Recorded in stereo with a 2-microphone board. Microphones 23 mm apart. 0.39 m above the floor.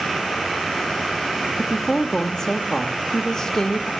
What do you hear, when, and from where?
1.6 s a woman speaking: 20° left (ahead or behind), 0.8 m